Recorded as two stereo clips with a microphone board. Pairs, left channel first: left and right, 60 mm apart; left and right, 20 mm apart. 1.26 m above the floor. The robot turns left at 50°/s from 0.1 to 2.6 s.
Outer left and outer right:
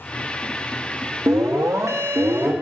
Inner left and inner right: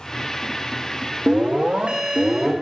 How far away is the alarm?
About 1.5 m.